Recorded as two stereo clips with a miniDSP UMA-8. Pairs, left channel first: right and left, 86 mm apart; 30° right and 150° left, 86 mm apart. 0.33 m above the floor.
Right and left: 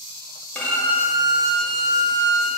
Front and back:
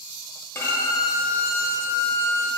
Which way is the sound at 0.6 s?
35° right.